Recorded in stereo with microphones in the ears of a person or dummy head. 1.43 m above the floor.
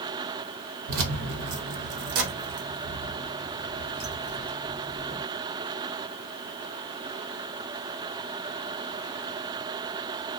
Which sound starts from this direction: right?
Keys jangling, at 0.9 s.